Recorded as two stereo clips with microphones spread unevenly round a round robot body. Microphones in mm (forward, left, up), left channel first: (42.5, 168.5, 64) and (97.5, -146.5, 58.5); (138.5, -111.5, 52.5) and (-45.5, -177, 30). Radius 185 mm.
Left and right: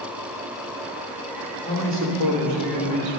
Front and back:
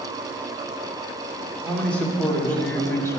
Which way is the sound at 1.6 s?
65° right.